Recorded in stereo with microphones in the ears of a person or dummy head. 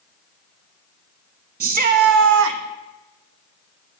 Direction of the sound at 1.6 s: 40° right (ahead or behind).